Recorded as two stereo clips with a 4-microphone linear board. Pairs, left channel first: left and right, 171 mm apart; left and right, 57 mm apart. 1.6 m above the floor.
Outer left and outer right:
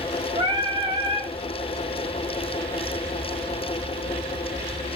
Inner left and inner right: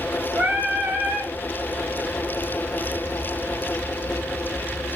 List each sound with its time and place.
0.3 s singing: 30° right (ahead or behind), 1.5 m